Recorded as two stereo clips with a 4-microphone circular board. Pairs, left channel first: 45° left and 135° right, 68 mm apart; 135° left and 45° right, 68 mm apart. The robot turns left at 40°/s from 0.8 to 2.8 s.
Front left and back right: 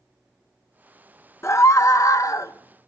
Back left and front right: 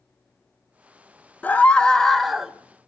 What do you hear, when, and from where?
1.4 s a scream: 80° left, 0.8 m; by 2.5 s 35° left, 0.8 m